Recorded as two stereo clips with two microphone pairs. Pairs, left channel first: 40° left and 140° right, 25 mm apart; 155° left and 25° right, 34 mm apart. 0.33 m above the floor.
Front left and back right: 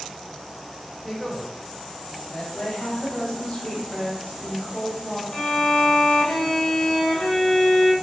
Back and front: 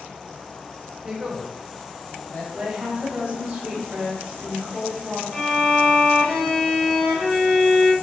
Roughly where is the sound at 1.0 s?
Ahead right.